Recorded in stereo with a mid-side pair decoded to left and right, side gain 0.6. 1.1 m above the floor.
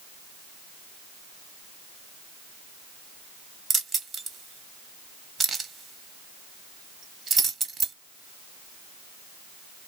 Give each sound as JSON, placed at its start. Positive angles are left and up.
{"t": 3.7, "sound": "keys jangling", "azimuth_deg": -30, "distance_m": 1.1}